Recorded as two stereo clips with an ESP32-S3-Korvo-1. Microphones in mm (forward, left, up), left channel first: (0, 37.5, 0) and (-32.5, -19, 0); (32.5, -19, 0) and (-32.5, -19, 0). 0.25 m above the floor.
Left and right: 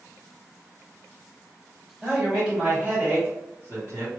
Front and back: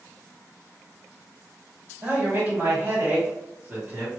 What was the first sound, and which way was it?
A man speaking, 160° left.